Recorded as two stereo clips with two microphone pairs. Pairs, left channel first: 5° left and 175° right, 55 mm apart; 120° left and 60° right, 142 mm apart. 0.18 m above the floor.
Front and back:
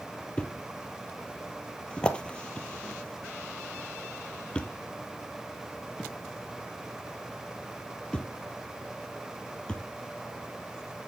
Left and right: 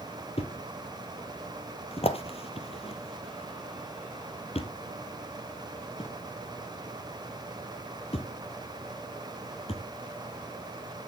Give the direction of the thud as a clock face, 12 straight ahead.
9 o'clock.